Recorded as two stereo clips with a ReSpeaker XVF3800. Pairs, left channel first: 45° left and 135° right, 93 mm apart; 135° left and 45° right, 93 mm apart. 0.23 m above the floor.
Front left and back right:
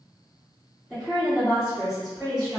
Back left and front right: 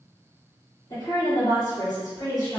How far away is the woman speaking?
About 1.9 m.